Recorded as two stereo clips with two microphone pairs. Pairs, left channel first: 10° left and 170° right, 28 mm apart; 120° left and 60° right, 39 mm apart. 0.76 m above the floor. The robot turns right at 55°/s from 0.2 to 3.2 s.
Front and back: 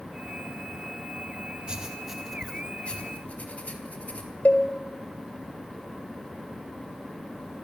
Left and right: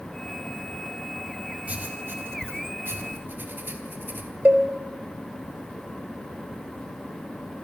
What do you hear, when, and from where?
1.7 s writing: 110° right, 4 m; by 4.3 s 25° right, 4 m
4.5 s a cowbell: 15° right, 4 m